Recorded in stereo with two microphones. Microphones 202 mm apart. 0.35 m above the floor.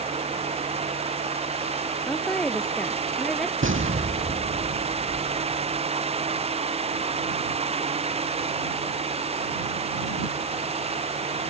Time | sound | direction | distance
2.1 | a woman speaking | centre (ahead or behind) | ?
3.6 | an explosion | 85° right | ?